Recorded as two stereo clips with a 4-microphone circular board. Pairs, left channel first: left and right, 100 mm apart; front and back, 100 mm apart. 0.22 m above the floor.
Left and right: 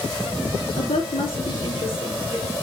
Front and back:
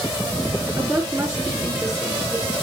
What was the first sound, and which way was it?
A woman speaking, 115° left.